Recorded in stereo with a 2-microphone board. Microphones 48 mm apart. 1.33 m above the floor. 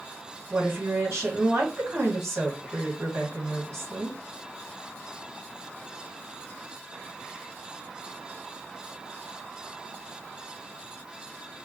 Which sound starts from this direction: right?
A woman speaking, at 0.5 s.